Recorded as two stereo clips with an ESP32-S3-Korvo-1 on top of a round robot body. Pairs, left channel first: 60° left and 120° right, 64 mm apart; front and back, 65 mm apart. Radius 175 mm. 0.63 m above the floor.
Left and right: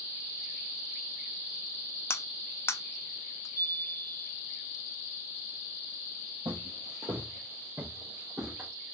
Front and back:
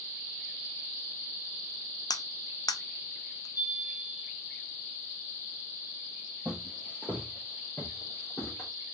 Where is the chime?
20° left, 2.0 m.